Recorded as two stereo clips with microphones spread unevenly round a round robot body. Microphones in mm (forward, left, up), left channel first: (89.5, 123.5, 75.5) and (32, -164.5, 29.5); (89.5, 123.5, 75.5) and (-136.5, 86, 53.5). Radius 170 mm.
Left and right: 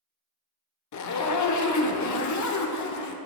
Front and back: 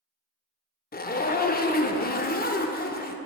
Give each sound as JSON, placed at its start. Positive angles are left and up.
{"t": 0.9, "sound": "a zipper", "azimuth_deg": 60, "distance_m": 0.8}